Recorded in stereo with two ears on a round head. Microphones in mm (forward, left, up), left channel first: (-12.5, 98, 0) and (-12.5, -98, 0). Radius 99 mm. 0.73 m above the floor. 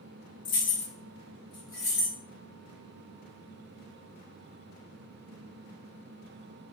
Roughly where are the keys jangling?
Left.